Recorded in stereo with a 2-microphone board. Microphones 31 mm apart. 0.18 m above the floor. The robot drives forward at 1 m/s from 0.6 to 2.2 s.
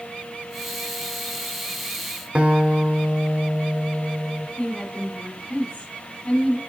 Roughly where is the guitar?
Right.